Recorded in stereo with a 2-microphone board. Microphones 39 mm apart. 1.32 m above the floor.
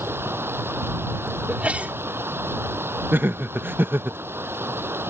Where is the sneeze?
40° right (ahead or behind).